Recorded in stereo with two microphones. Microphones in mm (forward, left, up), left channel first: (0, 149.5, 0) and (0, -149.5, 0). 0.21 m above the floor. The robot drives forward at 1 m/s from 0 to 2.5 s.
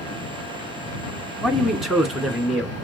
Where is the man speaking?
Centre (ahead or behind), 1.7 m.